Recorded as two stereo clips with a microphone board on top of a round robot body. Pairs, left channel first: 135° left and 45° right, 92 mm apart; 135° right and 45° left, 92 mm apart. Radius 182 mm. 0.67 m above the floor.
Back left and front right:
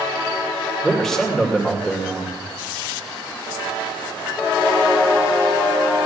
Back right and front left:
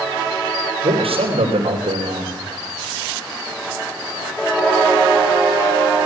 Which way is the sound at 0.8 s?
50° left.